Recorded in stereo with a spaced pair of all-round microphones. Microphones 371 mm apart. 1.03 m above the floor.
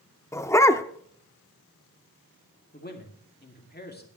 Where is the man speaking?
25° left (ahead or behind), 2.5 m.